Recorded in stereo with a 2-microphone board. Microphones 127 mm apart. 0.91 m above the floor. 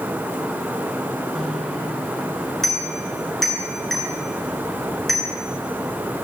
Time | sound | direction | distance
1.4 | a bicycle bell | centre (ahead or behind) | 8 m